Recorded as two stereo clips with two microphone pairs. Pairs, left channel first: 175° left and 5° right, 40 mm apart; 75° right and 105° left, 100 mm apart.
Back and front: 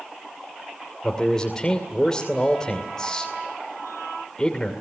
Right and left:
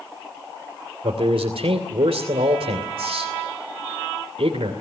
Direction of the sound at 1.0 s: 105° left.